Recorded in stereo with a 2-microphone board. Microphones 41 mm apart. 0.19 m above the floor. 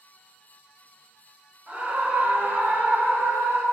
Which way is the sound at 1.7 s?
30° right (ahead or behind).